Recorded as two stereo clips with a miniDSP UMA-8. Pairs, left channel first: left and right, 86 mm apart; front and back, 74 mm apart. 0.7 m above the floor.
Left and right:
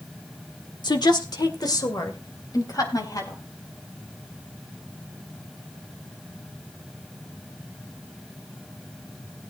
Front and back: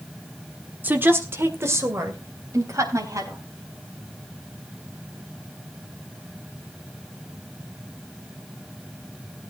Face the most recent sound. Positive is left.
turn(degrees=140)